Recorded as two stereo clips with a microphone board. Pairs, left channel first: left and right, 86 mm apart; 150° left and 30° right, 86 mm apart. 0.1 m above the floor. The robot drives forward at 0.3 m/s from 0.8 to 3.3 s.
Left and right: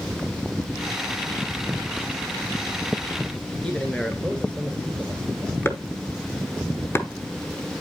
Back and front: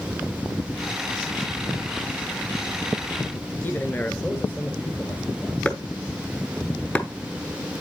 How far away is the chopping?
About 1.0 m.